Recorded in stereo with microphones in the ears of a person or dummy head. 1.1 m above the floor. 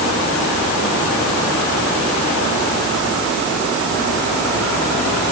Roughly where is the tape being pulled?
I don't hear tape being pulled.